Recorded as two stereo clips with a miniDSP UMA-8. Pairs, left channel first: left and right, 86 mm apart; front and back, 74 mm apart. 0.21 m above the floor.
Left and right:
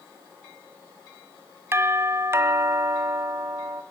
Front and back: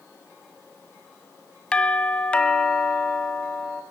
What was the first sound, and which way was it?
A doorbell, 65° right.